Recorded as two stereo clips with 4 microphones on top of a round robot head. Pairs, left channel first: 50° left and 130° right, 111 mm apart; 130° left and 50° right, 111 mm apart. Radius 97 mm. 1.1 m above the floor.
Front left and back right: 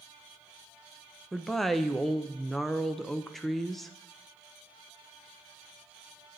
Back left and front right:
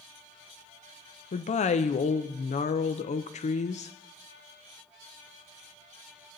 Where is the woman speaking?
140° left, 0.6 m.